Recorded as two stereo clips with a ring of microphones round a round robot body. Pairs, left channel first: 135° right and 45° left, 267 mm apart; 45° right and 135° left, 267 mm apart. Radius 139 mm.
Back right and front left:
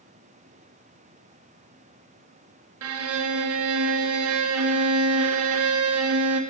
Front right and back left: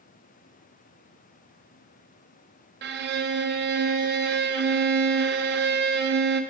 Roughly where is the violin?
Left.